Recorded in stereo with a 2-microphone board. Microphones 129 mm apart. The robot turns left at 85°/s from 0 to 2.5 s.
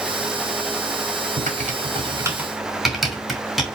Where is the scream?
No scream in this recording.